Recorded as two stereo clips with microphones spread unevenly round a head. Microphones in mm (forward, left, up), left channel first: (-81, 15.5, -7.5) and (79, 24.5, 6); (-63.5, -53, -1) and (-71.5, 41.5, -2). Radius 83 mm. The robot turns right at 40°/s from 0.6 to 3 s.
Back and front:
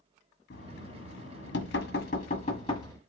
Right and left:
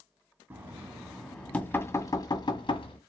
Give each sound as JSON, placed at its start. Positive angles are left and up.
{"t": 0.5, "sound": "knocking", "azimuth_deg": 160, "distance_m": 1.9}